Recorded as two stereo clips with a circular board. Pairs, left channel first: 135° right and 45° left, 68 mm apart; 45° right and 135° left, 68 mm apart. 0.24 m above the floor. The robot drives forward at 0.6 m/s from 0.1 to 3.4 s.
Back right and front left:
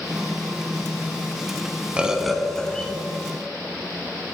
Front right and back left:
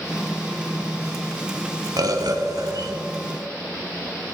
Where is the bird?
120° left, 0.6 m; by 2.9 s 150° left, 1.0 m.